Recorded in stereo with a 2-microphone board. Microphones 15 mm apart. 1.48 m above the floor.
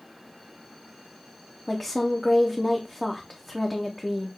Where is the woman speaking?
15° left (ahead or behind), 0.6 m.